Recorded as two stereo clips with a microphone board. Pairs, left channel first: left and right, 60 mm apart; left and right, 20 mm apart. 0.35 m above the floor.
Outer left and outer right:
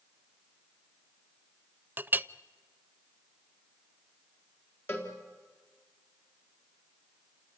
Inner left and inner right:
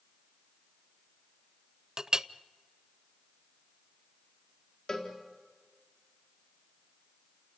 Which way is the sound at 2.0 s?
30° right (ahead or behind).